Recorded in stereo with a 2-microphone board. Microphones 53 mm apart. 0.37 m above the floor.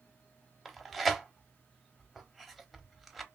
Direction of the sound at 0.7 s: Centre (ahead or behind).